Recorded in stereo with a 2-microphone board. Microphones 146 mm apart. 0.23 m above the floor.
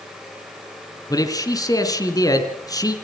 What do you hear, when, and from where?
1.1 s a man speaking: 25° left (ahead or behind), 2.5 m